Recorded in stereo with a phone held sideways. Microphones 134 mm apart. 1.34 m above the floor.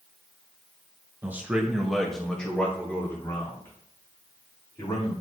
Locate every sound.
1.2 s a man speaking: 15° right (ahead or behind), 1.7 m; by 5.1 s 25° left (ahead or behind), 4.5 m